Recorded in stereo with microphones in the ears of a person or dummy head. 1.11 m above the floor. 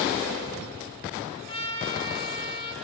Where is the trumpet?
35° left (ahead or behind), 7 m.